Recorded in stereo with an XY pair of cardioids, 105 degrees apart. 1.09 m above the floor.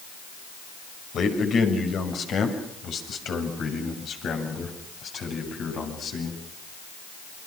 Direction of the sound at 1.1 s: 60° left.